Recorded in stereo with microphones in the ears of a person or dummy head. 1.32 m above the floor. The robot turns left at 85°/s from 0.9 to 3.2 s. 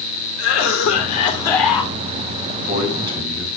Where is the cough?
70° left, 3.5 m; by 1.9 s 20° right, 3.5 m.